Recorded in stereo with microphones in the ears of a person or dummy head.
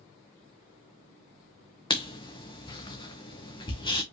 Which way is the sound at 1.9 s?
25° left (ahead or behind).